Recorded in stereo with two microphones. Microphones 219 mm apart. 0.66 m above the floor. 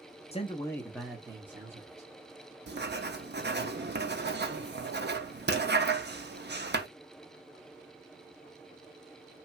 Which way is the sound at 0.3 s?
30° left (ahead or behind).